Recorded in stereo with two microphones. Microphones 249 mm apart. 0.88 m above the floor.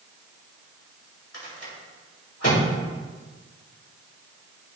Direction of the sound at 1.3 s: 75° left (ahead or behind).